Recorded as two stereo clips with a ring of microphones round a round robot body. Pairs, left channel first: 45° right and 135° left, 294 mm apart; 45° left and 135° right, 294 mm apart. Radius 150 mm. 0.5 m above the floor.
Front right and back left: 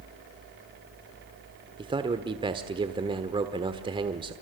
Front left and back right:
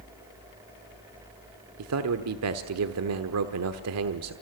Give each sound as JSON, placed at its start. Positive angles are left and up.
{"t": 1.8, "sound": "a man speaking", "azimuth_deg": -155, "distance_m": 1.2}